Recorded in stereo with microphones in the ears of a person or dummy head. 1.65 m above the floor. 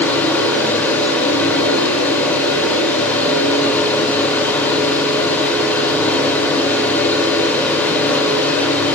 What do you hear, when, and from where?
0.0 s a fan: 10° left (ahead or behind), 3 m